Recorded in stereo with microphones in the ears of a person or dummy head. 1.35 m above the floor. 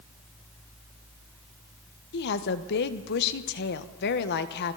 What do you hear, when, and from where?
2.1 s a woman speaking: 55° left (ahead or behind), 1.3 m